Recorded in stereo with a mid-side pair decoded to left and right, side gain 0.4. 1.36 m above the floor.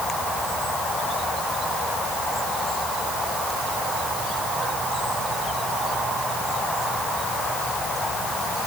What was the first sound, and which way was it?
Only background noise.